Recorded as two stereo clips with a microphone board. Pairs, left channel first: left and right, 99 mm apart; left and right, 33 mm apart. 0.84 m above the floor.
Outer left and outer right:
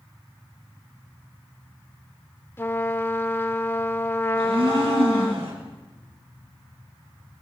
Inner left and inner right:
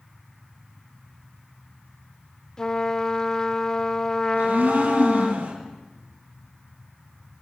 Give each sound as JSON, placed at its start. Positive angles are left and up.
{"t": 2.6, "sound": "a trumpet", "side_deg": 25, "distance_m": 1.1}
{"t": 4.3, "sound": "a blender", "side_deg": -80, "distance_m": 6.0}